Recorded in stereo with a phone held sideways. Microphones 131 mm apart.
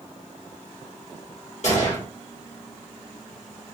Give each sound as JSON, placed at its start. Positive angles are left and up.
{"t": 1.6, "sound": "a gunshot", "side_deg": 60, "distance_m": 1.4}